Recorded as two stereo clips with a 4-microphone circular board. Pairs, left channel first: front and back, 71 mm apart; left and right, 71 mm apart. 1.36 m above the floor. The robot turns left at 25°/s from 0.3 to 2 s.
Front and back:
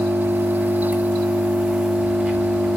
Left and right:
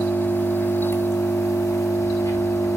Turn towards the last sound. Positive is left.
turn(degrees=95)